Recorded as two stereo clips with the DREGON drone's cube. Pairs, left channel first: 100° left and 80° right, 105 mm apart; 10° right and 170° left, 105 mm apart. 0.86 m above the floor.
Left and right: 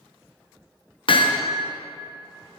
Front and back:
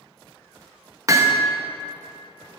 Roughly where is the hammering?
Behind left.